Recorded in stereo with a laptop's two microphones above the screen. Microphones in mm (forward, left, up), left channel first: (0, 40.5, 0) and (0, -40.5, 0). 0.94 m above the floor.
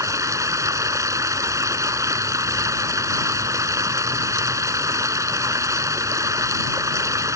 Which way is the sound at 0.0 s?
40° right (ahead or behind).